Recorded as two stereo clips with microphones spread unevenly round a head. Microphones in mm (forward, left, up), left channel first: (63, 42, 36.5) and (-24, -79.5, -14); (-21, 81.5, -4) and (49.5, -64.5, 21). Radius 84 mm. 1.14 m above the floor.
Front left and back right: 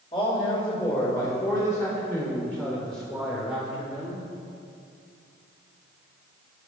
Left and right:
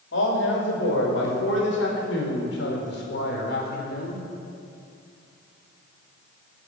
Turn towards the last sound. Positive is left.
turn(degrees=155)